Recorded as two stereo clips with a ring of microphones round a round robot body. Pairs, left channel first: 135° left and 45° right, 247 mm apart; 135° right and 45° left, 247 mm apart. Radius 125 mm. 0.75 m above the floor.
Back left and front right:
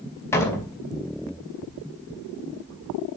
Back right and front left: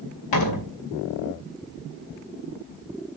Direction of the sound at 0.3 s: 145° right.